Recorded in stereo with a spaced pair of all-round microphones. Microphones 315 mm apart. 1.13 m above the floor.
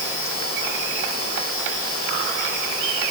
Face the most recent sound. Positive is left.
No sound to turn to.